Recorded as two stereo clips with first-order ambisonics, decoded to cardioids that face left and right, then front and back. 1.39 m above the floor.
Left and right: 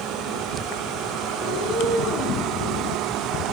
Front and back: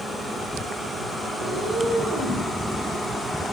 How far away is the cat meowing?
About 1.7 m.